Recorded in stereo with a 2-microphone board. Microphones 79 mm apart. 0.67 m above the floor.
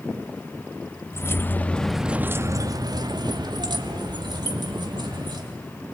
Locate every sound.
1.1 s keys jangling: 35° left (ahead or behind), 1.0 m; by 5.5 s 65° right (ahead or behind), 2.5 m